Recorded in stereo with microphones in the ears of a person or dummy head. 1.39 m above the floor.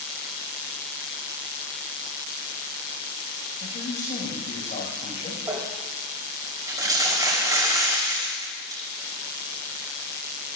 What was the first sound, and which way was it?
A man speaking, 45° left (ahead or behind).